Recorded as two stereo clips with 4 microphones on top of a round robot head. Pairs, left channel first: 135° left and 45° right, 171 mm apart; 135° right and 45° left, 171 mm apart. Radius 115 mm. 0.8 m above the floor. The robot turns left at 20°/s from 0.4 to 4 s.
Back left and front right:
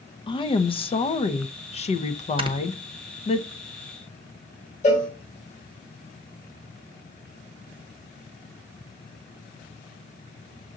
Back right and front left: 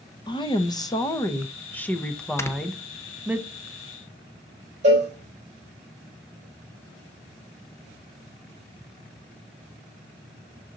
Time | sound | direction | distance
0.3 | a woman speaking | straight behind | 0.8 m
2.4 | snoring | 70° right | 0.9 m
4.8 | a cowbell | 90° left | 4 m